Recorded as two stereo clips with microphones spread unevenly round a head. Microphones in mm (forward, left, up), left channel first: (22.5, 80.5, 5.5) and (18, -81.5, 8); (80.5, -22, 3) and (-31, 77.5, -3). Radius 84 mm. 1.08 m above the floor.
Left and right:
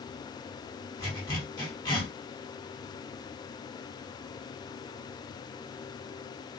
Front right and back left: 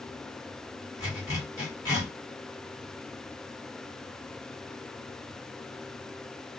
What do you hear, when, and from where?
1.0 s a zipper: 25° left, 1.3 m